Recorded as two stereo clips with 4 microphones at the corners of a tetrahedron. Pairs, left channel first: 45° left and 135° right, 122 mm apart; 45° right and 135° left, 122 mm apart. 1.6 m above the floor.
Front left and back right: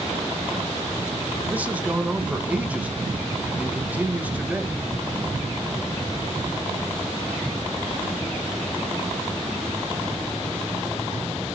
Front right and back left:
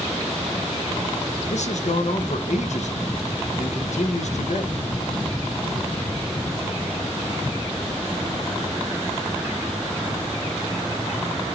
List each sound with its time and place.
1.5 s a man speaking: 60° right, 1.3 m